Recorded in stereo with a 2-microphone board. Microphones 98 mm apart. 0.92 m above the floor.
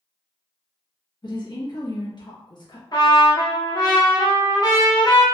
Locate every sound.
1.2 s a woman speaking: 50° left (ahead or behind), 1.2 m
2.9 s a trumpet: 45° left (ahead or behind), 1.0 m